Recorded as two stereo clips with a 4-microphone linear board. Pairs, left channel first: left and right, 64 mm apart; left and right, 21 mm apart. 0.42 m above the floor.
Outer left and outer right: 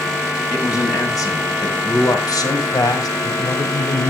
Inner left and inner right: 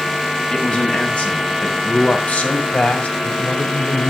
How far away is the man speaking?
About 3 m.